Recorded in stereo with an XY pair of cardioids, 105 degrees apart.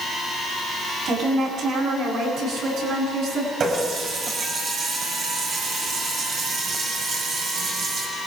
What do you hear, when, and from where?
1.1 s a woman speaking: 60° right, 7.5 m; by 3.5 s 75° right, 10.5 m
3.6 s a running tap: 55° right, 5.5 m